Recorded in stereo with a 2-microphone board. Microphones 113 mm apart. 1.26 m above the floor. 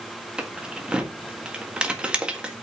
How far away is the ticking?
No ticking in this recording.